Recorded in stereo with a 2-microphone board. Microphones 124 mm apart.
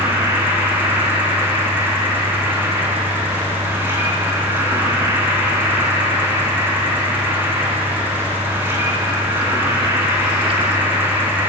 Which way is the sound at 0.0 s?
15° right (ahead or behind).